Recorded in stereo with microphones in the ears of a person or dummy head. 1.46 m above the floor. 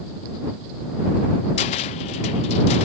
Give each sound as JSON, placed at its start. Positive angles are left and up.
{"t": 1.6, "sound": "a cupboard door", "side_deg": 30}